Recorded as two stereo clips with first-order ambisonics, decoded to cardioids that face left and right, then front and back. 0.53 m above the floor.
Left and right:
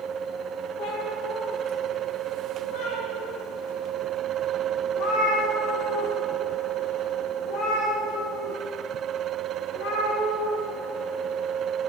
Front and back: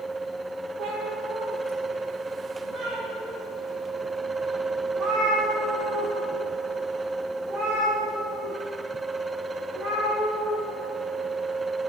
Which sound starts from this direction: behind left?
A cat meowing, at 0.8 s.